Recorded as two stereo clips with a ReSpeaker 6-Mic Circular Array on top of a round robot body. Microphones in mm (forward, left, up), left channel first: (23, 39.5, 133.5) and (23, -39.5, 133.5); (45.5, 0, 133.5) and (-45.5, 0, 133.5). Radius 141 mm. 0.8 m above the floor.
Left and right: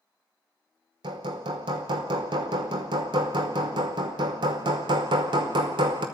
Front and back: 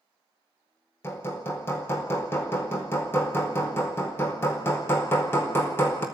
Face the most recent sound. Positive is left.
turn(degrees=-65)